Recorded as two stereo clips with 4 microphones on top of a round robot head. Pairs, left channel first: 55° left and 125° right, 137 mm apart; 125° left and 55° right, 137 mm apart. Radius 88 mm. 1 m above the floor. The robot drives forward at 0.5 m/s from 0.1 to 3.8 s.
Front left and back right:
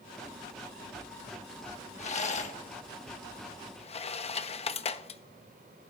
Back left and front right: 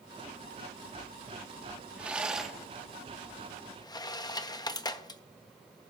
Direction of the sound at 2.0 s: 25° left.